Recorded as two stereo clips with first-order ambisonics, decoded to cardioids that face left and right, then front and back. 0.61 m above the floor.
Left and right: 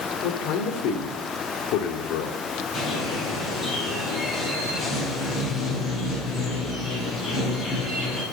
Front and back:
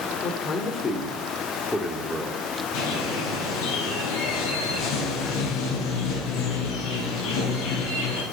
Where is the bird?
15° left, 7.5 m.